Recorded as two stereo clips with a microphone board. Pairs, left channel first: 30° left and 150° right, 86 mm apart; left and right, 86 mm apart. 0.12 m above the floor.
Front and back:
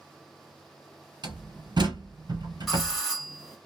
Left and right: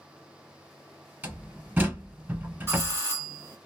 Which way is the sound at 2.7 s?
65° right.